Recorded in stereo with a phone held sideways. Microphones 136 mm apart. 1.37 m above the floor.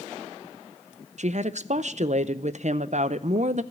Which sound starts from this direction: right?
A woman speaking, at 1.2 s.